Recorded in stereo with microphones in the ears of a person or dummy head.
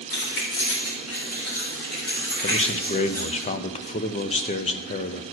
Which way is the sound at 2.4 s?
35° left (ahead or behind).